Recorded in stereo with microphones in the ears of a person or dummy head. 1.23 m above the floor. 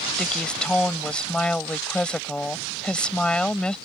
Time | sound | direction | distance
0.2 | a woman speaking | centre (ahead or behind) | ?